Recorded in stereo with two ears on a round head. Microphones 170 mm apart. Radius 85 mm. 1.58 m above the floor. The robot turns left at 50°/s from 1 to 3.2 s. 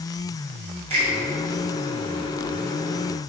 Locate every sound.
0.9 s a finger snap: 35° right (ahead or behind), 1.6 m